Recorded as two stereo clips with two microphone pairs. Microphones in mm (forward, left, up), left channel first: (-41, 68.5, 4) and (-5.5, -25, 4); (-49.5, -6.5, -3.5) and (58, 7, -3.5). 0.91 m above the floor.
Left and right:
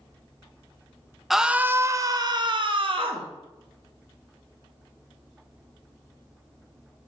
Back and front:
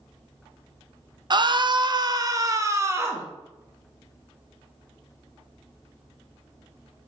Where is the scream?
20° left, 0.6 m; by 3.3 s 60° right, 1.2 m.